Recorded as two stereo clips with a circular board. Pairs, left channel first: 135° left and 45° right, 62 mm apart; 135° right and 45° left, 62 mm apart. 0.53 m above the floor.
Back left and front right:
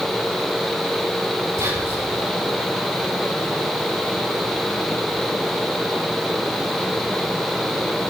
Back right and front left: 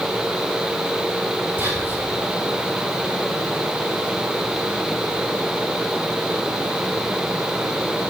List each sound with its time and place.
1.6 s whispering: 20° right, 5.5 m